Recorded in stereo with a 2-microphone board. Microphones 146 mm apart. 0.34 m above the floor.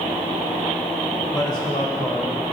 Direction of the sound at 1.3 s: 30° left (ahead or behind).